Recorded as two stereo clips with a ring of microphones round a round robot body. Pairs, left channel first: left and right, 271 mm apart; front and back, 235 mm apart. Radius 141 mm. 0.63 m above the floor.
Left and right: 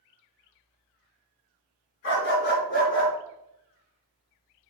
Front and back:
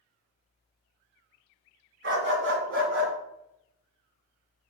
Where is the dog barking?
140° left, 2.5 m; by 3.1 s 155° left, 3 m.